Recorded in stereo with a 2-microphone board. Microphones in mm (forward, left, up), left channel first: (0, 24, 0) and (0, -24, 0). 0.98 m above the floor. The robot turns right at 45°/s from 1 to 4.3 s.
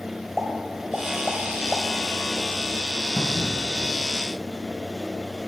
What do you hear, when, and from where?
0.4 s a pop: 5° left (ahead or behind), 1.6 m; by 1.8 s 40° left (ahead or behind), 1.6 m
3.2 s a cupboard door: 75° right (ahead or behind), 2.5 m; by 3.6 s 85° right, 2.5 m